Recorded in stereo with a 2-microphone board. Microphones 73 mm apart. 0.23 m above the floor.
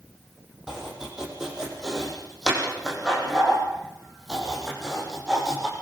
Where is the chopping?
5° right (ahead or behind), 7 m.